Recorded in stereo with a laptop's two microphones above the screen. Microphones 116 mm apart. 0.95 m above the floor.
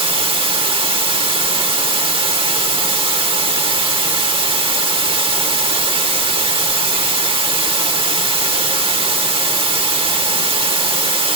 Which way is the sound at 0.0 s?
45° right (ahead or behind).